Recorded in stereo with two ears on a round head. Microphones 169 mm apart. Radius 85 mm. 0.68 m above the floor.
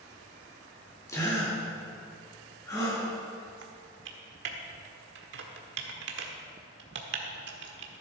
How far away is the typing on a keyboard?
About 1.4 m.